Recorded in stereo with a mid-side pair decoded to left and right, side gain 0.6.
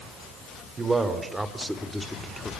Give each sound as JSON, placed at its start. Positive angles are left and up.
{"t": 0.8, "sound": "a man speaking", "azimuth_deg": -25, "distance_m": 4.0}